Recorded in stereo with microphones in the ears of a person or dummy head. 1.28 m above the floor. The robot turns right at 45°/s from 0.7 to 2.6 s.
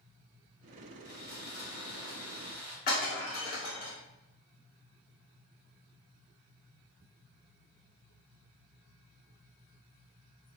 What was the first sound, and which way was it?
Sawing, 110° left.